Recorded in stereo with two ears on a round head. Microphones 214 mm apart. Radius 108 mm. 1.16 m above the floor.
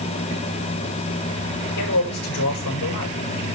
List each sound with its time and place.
1.8 s a man speaking: 75° left (ahead or behind), 5.5 m